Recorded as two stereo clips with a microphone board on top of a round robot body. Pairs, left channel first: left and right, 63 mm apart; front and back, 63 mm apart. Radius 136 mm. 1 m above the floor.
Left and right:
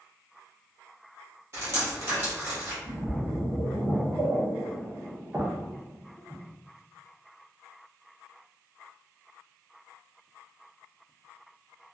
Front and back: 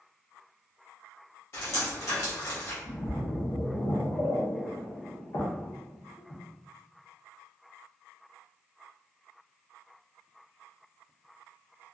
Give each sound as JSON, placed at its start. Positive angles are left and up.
{"t": 1.5, "sound": "dripping", "azimuth_deg": -45, "distance_m": 0.9}
{"t": 2.8, "sound": "a splash", "azimuth_deg": -25, "distance_m": 0.9}